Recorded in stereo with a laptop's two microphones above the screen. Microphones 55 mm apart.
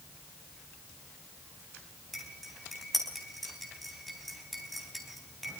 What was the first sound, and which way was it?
Cutlery clinking, centre (ahead or behind).